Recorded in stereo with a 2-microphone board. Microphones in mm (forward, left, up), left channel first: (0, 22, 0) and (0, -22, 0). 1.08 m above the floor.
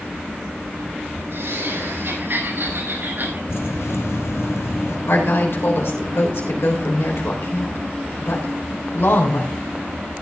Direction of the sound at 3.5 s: 80° left.